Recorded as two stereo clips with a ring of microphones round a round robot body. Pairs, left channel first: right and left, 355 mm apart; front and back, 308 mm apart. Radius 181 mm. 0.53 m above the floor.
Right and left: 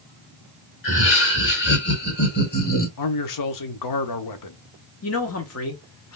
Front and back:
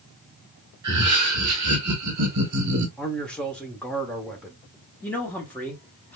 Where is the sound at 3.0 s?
85° right, 1.0 m.